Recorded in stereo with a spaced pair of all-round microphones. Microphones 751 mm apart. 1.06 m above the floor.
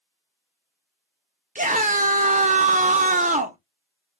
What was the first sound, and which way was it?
A scream, 10° right (ahead or behind).